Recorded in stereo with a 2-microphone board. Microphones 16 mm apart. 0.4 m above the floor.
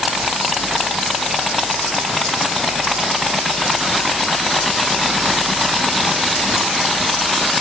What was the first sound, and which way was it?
Only background noise.